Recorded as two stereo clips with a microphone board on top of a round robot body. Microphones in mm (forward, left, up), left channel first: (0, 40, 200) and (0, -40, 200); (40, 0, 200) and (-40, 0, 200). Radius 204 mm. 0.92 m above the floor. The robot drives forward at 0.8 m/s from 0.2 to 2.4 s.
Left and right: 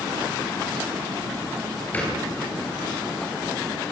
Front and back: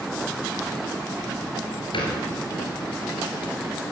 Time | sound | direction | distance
1.9 | a thud | 20° left | 4.5 m